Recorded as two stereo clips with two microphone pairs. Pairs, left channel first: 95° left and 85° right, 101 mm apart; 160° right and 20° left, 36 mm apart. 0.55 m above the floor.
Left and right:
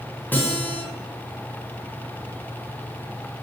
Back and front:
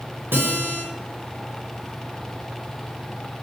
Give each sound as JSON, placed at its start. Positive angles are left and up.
{"t": 0.3, "sound": "a guitar", "azimuth_deg": 20, "distance_m": 5.0}